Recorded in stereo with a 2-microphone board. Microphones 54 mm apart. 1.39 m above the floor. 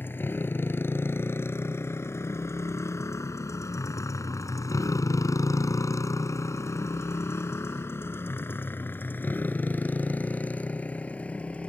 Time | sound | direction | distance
0.0 | a motorcycle | 40° left (ahead or behind) | ?